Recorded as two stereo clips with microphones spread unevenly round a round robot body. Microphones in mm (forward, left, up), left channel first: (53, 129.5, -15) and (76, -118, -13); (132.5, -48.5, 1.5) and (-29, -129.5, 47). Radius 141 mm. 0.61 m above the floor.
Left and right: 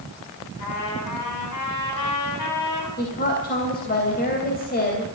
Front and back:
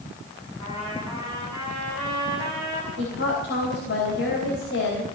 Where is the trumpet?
100° left, 6 m.